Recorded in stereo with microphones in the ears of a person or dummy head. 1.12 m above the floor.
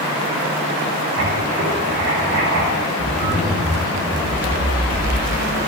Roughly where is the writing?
Right.